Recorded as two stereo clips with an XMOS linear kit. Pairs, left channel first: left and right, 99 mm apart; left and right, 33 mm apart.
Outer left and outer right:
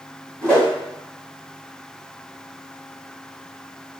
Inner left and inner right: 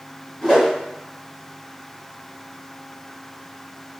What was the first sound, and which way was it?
A whoosh, 10° left (ahead or behind).